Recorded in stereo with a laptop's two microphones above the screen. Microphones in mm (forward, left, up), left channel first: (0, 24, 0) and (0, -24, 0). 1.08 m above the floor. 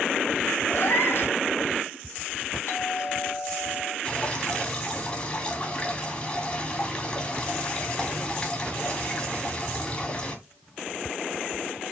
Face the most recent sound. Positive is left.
turn(degrees=25)  # may be behind; listen again after turning